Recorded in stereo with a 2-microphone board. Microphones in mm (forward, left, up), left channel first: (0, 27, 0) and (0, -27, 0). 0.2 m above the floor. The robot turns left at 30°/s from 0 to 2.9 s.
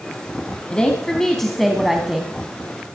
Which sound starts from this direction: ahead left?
A woman speaking, at 0.7 s.